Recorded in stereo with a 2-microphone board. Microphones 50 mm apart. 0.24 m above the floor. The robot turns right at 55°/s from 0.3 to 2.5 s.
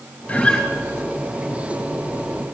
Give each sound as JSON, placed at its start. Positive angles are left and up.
{"t": 0.3, "sound": "a guitar", "side_deg": 35, "distance_m": 2.0}